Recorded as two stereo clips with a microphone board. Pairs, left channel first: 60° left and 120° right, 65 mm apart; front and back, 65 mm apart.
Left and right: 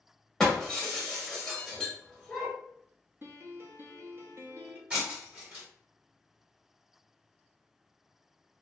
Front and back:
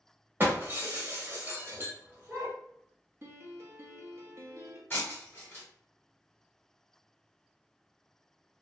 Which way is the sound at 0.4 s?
140° left.